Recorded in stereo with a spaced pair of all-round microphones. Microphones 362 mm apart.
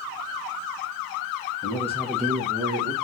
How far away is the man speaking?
About 1.1 m.